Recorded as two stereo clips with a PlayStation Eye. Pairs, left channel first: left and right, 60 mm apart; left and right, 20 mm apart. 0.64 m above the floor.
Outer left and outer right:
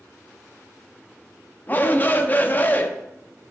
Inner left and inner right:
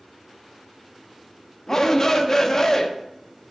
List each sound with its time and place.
1.7 s a shout: 30° left (ahead or behind), 0.6 m